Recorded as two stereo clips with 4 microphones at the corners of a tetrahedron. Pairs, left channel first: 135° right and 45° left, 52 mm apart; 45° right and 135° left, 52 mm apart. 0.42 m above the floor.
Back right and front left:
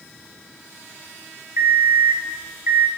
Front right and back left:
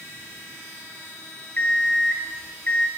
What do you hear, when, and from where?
1.6 s an alarm clock: 10° left, 1.5 m